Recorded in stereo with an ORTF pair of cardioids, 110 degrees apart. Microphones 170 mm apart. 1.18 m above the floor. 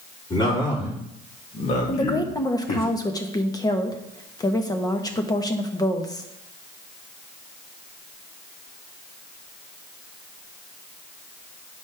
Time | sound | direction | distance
0.3 | a man speaking | 25° left | 4 m
1.9 | a woman speaking | 20° left | 1.3 m